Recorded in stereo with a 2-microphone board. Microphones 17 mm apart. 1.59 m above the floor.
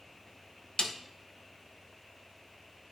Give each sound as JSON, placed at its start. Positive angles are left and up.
{"t": 0.8, "sound": "a snare drum", "side_deg": 60, "distance_m": 0.9}